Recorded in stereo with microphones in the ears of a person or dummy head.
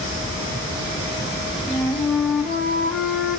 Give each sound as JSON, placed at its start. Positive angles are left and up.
{"t": 1.7, "sound": "a flute", "side_deg": 0, "distance_m": 1.0}